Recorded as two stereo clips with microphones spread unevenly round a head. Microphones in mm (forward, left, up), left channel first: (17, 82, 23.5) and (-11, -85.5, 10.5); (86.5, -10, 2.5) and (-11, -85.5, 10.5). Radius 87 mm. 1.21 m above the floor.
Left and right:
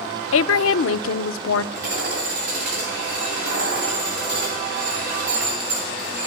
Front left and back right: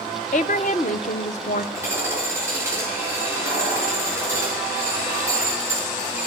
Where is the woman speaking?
90° left, 0.6 m.